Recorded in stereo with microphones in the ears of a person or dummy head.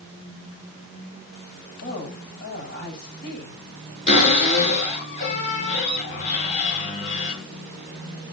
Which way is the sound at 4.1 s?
35° left (ahead or behind).